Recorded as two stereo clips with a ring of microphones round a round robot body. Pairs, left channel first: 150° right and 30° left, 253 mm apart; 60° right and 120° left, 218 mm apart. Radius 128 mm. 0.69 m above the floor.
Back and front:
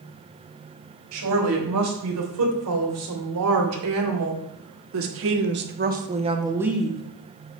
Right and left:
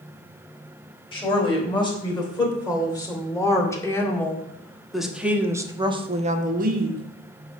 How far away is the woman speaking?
About 4 m.